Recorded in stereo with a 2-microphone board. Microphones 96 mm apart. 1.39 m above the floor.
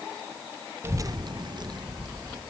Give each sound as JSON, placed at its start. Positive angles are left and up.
{"t": 0.8, "sound": "a child speaking", "side_deg": -25, "distance_m": 0.5}